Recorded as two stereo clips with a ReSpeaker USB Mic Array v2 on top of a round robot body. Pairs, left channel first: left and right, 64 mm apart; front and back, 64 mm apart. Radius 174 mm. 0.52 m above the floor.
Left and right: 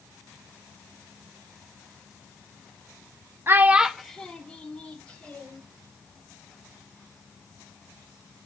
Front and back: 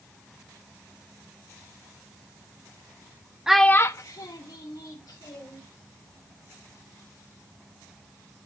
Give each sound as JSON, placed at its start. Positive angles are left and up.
{"t": 3.5, "sound": "a child speaking", "azimuth_deg": -105, "distance_m": 0.6}